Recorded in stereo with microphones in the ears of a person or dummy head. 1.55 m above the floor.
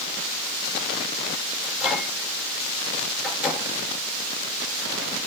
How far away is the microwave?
About 5.5 m.